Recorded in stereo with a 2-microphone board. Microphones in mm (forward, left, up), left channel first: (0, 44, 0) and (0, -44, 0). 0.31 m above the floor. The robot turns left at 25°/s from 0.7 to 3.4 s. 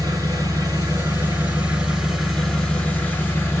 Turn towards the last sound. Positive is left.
turn(degrees=155)